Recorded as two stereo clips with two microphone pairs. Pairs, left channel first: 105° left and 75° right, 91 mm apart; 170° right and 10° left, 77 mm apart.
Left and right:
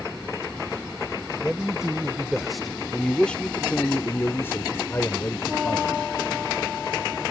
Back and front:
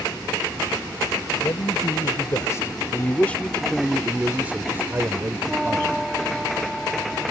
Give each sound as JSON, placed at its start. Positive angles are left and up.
{"t": 1.4, "sound": "a man speaking", "azimuth_deg": -155}